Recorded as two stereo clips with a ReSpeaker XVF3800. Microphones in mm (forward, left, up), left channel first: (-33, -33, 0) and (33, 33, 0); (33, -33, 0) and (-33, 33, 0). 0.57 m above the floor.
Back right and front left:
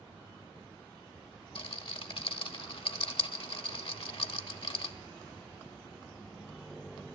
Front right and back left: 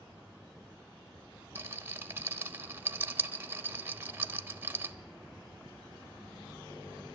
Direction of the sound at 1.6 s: 160° right.